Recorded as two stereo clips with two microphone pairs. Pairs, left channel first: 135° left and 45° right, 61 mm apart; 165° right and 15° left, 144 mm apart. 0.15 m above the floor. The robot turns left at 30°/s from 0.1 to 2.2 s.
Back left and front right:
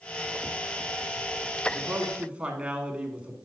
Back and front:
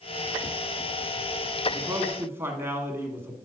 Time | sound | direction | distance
1.7 | a man speaking | 10° right | 1.1 m